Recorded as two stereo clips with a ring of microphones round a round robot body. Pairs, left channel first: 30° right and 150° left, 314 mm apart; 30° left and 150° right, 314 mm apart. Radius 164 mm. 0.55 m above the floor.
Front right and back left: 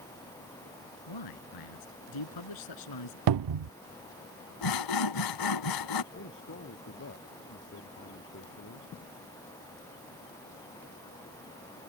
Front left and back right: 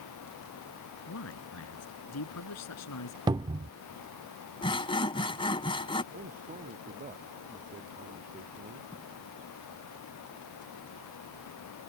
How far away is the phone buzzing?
No phone buzzing in this recording.